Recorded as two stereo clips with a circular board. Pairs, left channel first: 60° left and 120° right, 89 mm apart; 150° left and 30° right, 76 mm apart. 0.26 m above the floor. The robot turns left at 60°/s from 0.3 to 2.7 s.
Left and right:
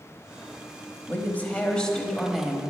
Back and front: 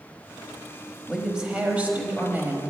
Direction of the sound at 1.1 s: 45° left.